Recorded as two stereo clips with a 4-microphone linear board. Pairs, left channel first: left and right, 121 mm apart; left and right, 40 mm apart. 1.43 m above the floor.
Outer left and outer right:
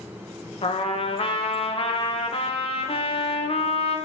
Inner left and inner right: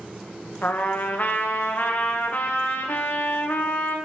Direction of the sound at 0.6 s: 50° left (ahead or behind).